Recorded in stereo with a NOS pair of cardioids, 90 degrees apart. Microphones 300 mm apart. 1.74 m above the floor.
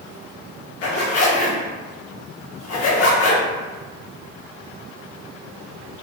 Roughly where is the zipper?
Ahead left.